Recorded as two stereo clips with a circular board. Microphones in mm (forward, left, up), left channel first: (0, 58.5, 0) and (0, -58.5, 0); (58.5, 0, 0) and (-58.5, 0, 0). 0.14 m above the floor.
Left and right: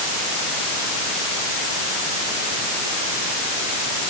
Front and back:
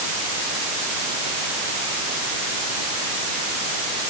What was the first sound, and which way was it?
Only background noise.